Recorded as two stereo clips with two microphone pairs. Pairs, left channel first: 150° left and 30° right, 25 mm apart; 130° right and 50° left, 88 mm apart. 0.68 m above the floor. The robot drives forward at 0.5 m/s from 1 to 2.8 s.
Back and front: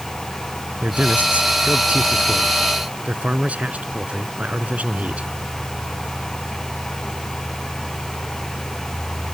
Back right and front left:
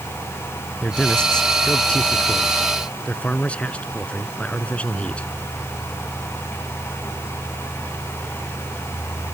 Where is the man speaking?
50° right; by 5.3 s 55° right.